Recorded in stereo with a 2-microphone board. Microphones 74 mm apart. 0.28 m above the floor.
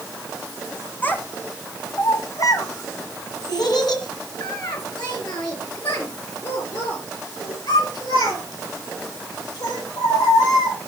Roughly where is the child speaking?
Left.